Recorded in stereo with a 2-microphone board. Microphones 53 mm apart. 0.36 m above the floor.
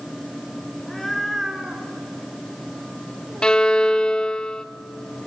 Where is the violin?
15° left (ahead or behind), 0.5 m.